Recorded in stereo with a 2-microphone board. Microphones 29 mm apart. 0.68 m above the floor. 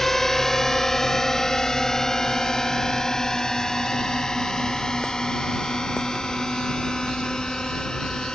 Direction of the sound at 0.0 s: 10° left (ahead or behind).